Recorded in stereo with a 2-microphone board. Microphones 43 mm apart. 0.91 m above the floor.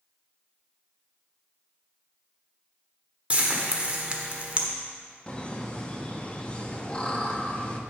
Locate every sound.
3.3 s frying: 30° right (ahead or behind), 1.1 m
5.3 s laughter: 25° left (ahead or behind), 1.1 m